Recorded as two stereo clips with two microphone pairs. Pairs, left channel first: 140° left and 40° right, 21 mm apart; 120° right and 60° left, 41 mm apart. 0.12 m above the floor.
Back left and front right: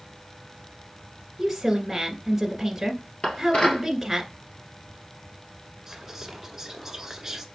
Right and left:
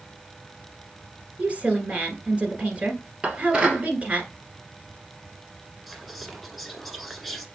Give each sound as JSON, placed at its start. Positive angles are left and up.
{"t": 1.4, "sound": "a woman speaking", "azimuth_deg": 40, "distance_m": 1.4}
{"t": 3.2, "sound": "dishes clattering", "azimuth_deg": 125, "distance_m": 1.5}
{"t": 5.9, "sound": "whispering", "azimuth_deg": -35, "distance_m": 1.1}